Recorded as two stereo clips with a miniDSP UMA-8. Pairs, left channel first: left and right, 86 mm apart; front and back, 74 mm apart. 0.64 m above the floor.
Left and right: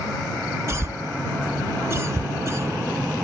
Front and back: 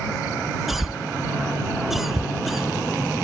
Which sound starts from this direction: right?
A cough, at 0.7 s.